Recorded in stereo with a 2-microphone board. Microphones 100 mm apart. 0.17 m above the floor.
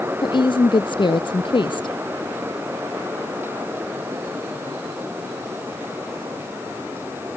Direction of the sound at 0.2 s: 55° left (ahead or behind).